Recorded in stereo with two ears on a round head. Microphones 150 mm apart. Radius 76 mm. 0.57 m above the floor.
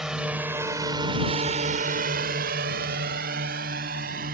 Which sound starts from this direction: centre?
A drone, at 0.0 s.